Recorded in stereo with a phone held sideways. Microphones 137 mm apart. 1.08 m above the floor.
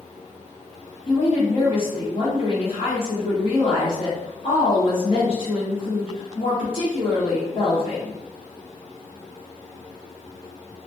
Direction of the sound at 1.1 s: 45° left (ahead or behind).